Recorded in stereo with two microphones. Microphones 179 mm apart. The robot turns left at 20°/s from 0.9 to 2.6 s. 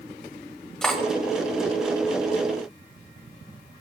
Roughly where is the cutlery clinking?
Centre.